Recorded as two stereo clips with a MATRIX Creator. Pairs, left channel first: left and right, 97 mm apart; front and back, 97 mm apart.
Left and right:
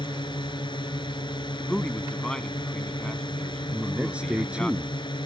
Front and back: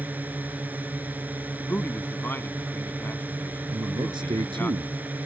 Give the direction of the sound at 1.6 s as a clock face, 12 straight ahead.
11 o'clock.